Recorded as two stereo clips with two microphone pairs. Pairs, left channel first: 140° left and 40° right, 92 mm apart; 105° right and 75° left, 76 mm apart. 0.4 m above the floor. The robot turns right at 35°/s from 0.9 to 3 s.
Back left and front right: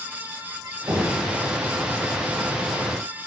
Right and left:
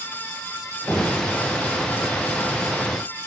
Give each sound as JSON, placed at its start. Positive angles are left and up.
{"t": 0.9, "sound": "knocking", "azimuth_deg": -55, "distance_m": 2.0}